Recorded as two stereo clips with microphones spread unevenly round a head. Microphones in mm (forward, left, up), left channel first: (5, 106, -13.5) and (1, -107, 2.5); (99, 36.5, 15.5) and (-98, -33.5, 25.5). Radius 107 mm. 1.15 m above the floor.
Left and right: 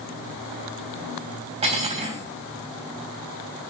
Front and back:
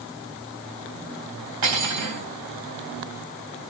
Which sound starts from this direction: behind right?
Cutlery clinking, at 1.6 s.